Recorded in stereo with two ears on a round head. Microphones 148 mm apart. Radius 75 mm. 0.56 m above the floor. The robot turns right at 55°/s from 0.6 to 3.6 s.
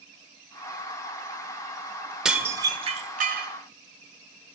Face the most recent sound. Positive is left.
turn(degrees=-105)